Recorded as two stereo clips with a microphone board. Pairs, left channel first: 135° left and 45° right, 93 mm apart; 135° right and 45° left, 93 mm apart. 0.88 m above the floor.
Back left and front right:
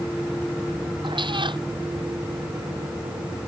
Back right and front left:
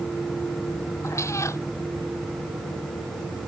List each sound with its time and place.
1.0 s a cat meowing: 75° right